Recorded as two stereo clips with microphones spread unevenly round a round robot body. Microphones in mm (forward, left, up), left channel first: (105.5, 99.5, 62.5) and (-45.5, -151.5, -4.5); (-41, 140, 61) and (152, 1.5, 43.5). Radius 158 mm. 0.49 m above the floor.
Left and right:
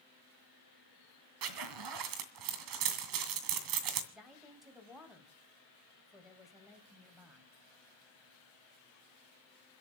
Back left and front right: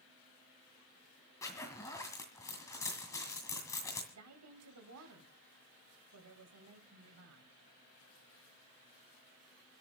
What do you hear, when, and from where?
1.4 s a zipper: 135° right, 2 m
4.1 s a woman speaking: 35° right, 3.5 m